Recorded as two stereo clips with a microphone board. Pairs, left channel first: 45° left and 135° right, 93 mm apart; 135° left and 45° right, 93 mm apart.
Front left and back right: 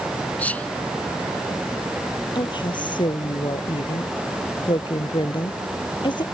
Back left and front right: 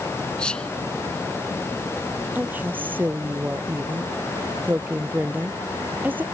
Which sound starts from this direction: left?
Whispering, at 0.4 s.